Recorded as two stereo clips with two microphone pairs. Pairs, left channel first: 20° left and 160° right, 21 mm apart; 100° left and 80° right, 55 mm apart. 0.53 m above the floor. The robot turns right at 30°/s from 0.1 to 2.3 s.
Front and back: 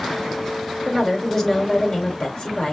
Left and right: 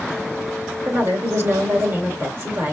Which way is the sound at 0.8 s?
80° right.